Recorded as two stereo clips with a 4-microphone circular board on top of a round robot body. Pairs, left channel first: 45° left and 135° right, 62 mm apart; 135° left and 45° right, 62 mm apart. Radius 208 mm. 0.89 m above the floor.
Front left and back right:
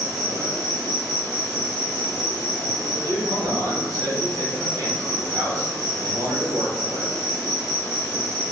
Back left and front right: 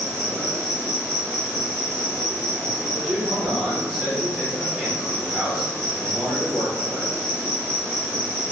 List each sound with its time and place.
0.0 s an insect: 145° right, 1.1 m
2.9 s a man speaking: 135° right, 1.3 m